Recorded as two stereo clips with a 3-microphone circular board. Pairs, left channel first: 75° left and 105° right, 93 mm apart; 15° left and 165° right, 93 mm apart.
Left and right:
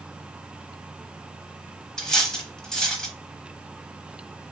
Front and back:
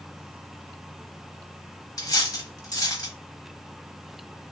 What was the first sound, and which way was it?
Cutlery clinking, 5° right.